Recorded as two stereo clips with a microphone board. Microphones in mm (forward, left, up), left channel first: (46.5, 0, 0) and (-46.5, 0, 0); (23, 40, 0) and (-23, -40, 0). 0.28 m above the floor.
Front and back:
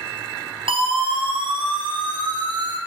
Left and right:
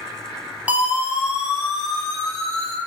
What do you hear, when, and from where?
0.7 s a siren: 165° left, 4.5 m; by 2.8 s 140° left, 5.5 m